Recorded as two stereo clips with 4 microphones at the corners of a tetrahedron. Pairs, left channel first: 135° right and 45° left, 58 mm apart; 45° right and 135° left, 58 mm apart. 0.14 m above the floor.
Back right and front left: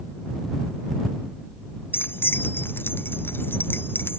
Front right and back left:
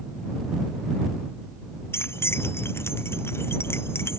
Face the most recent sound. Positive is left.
turn(degrees=-85)